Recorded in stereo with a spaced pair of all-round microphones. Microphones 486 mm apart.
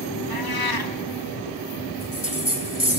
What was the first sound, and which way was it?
A cat meowing, 50° left (ahead or behind).